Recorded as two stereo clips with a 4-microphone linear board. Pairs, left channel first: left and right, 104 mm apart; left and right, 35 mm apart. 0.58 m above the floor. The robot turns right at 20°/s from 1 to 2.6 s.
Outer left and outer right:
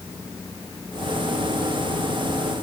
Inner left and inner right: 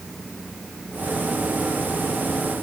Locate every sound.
Only background noise.